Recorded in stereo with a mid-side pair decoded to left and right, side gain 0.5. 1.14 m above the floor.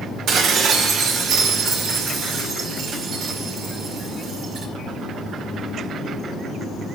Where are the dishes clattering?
65° right, 2 m.